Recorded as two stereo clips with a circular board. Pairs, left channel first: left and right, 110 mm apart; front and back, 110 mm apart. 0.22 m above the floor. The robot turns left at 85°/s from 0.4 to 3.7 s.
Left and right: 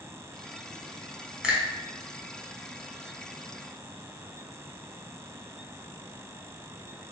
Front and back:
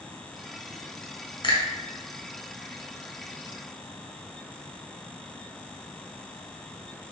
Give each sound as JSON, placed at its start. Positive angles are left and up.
{"t": 1.4, "sound": "a finger snap", "azimuth_deg": -10, "distance_m": 1.5}